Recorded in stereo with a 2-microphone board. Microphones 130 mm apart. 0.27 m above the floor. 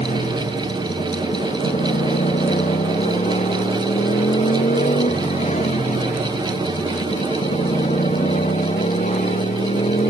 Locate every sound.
0.0 s a motorcycle: 65° left (ahead or behind)